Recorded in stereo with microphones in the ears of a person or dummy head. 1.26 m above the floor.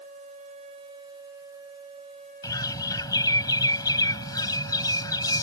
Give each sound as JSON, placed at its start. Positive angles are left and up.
{"t": 2.4, "sound": "a bird", "side_deg": 25}